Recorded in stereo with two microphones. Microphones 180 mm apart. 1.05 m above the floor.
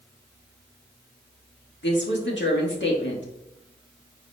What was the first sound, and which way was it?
A woman speaking, 85° left.